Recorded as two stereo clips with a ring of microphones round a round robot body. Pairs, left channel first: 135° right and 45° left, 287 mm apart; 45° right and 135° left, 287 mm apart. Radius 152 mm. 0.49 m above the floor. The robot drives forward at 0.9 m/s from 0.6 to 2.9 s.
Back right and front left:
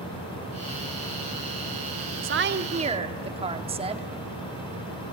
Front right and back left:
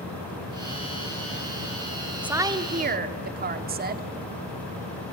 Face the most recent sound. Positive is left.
turn(degrees=105)